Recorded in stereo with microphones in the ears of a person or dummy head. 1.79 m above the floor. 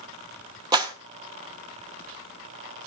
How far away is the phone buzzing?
No phone buzzing in this recording.